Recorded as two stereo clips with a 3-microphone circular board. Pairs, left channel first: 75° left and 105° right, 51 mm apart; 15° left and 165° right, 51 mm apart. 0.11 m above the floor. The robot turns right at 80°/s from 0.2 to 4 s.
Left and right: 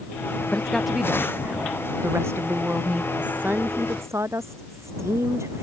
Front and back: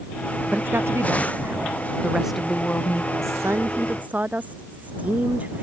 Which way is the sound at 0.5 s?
135° left.